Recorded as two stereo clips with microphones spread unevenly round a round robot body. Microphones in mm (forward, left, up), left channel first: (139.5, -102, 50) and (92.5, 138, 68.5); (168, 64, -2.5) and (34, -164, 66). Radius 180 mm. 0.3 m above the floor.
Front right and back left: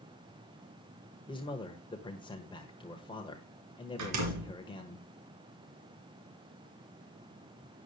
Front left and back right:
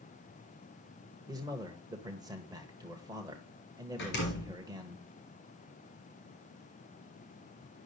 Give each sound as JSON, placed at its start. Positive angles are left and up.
{"t": 1.3, "sound": "a man speaking", "azimuth_deg": -30, "distance_m": 1.4}
{"t": 4.0, "sound": "a door slam", "azimuth_deg": 115, "distance_m": 3.0}